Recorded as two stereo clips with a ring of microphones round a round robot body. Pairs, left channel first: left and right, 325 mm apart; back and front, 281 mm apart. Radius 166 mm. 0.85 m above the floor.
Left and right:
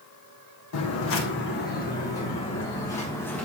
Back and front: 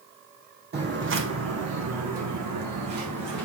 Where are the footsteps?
50° left, 1.8 m; by 3.5 s 5° left, 3 m.